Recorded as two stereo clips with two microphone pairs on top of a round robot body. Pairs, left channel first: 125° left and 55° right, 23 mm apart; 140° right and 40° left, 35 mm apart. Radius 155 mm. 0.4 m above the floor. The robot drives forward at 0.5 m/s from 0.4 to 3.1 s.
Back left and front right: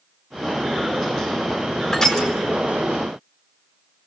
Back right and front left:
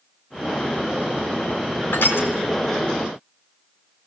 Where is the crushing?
170° right, 5 m.